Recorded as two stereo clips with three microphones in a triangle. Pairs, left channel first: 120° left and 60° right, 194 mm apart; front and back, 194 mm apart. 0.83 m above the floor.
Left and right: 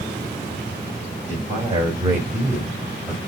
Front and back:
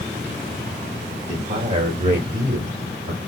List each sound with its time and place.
1.3 s a man speaking: 125° right, 3.5 m; by 3.2 s 145° right, 3.5 m